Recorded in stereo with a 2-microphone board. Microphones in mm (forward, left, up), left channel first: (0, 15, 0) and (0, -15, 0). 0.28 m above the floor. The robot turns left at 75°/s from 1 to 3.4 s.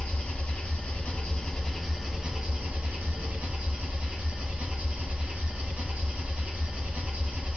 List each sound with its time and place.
0.0 s an engine running: 65° left, 0.8 m; by 7.6 s 115° right, 0.8 m